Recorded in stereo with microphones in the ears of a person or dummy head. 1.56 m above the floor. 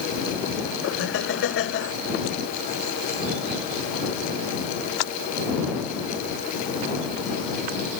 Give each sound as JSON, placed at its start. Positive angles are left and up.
{"t": 0.8, "sound": "laughter", "side_deg": 75}